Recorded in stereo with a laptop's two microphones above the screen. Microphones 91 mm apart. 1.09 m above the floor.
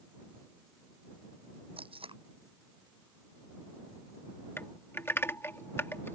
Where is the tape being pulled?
80° right.